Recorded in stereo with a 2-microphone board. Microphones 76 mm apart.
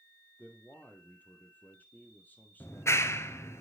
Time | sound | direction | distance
0.4 | a man speaking | 20° left (ahead or behind) | 2.5 m
2.6 | a clap | 35° left (ahead or behind) | 1.1 m